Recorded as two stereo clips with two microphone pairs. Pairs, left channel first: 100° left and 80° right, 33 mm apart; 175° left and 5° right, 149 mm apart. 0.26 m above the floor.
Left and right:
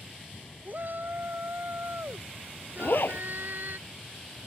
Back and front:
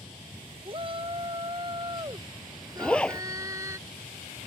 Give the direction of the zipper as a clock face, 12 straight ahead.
9 o'clock.